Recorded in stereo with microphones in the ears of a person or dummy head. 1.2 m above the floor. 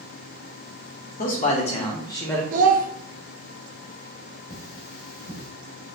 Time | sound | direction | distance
1.2 | a man speaking | 45° left (ahead or behind) | 1.0 m
2.5 | a child speaking | 50° right (ahead or behind) | 0.5 m
4.5 | cutlery clinking | 65° left (ahead or behind) | 1.8 m